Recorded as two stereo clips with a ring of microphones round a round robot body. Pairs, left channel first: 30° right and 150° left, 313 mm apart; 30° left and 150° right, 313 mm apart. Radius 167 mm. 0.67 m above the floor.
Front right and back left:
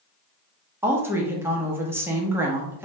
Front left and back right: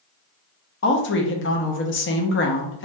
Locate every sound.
0.8 s a woman speaking: 70° left, 0.7 m